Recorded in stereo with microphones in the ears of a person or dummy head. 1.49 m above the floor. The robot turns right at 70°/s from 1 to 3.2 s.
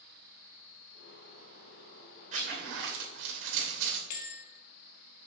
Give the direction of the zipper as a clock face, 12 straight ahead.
4 o'clock.